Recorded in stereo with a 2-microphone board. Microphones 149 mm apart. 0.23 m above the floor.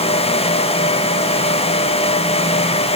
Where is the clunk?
No clunk in this recording.